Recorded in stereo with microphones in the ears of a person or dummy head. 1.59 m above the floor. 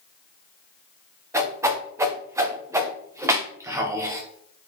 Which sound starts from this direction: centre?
A whoosh, at 1.3 s.